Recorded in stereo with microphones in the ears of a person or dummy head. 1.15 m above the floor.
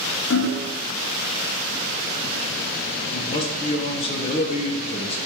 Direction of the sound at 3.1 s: 30° left (ahead or behind).